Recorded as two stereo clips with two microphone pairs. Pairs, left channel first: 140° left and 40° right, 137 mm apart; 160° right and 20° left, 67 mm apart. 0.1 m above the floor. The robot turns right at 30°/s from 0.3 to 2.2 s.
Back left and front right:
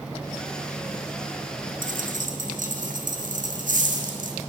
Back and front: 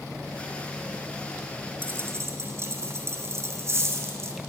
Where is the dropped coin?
40° right, 0.9 m; by 4.4 s 25° right, 0.9 m.